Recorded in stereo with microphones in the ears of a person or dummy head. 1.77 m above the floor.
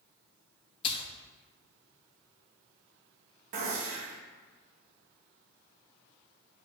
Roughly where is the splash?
Left.